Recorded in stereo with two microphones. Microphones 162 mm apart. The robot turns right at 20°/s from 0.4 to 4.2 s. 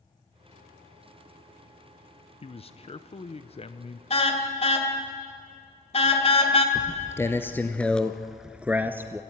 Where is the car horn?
40° left (ahead or behind), 2 m.